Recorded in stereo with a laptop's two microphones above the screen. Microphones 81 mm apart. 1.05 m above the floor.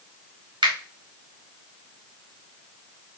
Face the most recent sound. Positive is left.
turn(degrees=-80)